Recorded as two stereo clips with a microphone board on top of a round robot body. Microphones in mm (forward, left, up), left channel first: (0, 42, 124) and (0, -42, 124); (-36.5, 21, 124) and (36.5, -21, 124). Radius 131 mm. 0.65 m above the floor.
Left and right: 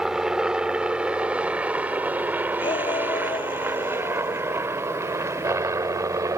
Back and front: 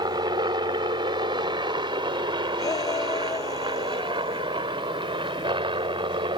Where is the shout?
105° left.